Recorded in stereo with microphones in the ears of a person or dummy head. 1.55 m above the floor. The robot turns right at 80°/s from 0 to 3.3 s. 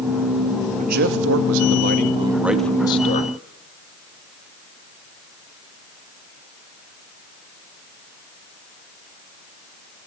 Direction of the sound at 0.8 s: 140° right.